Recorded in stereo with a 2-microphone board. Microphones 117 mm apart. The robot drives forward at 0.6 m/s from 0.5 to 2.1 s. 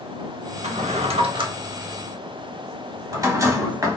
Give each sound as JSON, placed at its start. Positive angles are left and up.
{"t": 0.6, "sound": "a drawer", "side_deg": -70, "distance_m": 0.5}